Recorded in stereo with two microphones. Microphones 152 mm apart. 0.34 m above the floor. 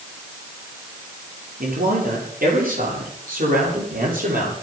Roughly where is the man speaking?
Right.